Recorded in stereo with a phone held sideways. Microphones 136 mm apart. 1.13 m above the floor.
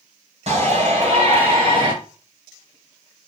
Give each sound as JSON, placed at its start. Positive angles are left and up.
{"t": 0.5, "sound": "a shout", "side_deg": -50, "distance_m": 6.0}